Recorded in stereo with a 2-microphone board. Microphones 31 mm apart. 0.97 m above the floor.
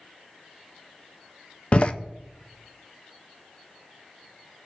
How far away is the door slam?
About 0.6 m.